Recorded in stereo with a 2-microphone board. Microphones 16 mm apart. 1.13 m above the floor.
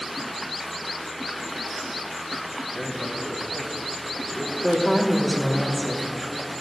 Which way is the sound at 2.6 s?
25° left (ahead or behind).